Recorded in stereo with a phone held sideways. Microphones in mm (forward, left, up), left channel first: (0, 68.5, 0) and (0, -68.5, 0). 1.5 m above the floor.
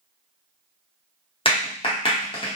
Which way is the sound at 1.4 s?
40° left (ahead or behind).